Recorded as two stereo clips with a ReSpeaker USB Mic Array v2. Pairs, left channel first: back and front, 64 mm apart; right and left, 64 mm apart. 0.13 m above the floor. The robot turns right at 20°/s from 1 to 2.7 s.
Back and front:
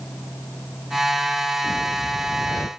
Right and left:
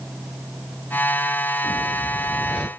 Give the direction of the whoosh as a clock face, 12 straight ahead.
7 o'clock.